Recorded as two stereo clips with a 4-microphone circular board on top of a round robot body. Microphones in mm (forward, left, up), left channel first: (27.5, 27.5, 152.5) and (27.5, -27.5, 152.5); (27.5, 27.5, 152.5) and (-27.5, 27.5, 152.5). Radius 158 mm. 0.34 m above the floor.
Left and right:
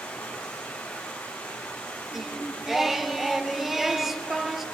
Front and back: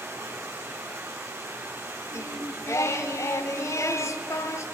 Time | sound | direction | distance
0.0 | running water | 150° left | 3 m
2.1 | singing | 5° right | 0.8 m